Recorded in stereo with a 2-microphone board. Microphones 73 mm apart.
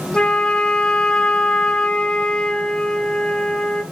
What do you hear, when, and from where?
0.1 s a flute: 15° left (ahead or behind), 0.5 m